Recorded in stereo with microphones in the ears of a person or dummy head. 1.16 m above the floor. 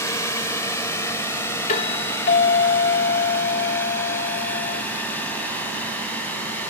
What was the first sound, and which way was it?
A drone, 10° left (ahead or behind).